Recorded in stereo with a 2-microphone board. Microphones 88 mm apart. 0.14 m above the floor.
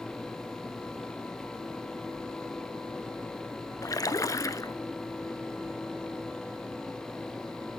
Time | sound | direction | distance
3.8 | a splash | 40° left (ahead or behind) | 0.6 m